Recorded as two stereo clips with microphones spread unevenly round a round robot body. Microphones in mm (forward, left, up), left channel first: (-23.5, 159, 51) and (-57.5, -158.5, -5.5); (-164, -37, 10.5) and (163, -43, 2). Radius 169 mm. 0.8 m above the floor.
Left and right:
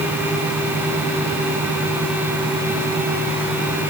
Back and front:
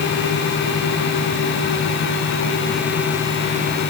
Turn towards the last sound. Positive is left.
No sound to turn to.